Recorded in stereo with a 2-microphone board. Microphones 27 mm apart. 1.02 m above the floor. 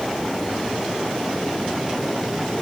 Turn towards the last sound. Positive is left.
No sound to turn to.